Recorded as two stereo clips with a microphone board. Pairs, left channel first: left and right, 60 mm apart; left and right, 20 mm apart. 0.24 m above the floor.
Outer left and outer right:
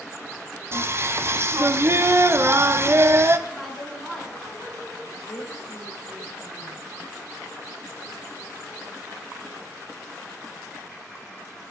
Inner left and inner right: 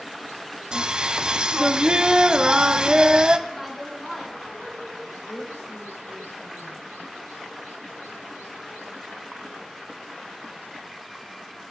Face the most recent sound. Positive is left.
turn(degrees=60)  # may be behind; listen again after turning